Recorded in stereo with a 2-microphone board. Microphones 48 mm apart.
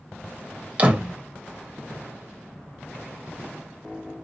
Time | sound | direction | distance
0.8 | a door slam | 30° right (ahead or behind) | 1.1 m